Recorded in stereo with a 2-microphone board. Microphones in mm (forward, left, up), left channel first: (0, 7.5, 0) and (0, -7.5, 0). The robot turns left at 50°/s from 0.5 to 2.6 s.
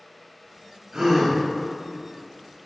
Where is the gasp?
45° right (ahead or behind), 1.0 m; by 1.4 s 25° right (ahead or behind), 1.0 m.